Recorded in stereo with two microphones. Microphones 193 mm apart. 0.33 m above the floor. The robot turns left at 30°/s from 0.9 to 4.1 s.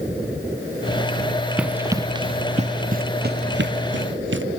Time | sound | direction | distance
1.6 | running footsteps | 5° right (ahead or behind) | ?